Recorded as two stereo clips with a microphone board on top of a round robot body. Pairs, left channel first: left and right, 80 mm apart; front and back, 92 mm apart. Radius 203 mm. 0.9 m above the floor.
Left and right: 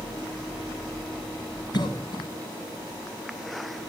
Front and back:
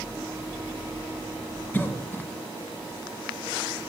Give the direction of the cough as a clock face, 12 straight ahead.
10 o'clock.